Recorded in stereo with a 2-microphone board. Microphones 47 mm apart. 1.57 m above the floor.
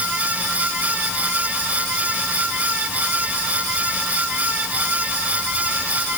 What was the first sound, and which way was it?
Only background noise.